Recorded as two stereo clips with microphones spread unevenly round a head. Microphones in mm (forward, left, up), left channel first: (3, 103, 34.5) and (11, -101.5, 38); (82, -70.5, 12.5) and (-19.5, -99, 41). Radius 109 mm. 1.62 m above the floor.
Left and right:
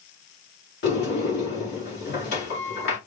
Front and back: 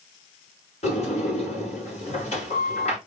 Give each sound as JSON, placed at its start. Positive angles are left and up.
{"t": 0.8, "sound": "a sliding door", "azimuth_deg": 55, "distance_m": 3.0}